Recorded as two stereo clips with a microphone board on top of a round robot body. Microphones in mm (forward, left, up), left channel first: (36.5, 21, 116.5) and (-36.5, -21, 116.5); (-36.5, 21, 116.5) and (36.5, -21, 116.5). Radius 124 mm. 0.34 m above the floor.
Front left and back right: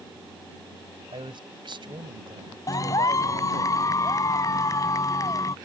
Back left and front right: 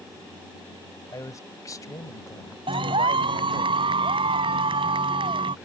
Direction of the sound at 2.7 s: 20° right.